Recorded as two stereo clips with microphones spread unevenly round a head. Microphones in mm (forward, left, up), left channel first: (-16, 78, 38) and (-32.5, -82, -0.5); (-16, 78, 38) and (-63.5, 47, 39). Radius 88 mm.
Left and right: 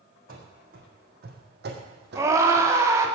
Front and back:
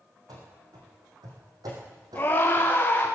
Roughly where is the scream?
Ahead right.